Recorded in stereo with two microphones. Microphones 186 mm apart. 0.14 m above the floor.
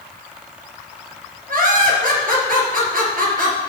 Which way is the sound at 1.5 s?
55° right (ahead or behind).